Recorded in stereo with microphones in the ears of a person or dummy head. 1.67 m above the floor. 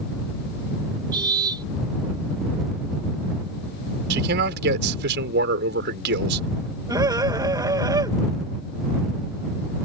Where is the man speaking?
60° right (ahead or behind).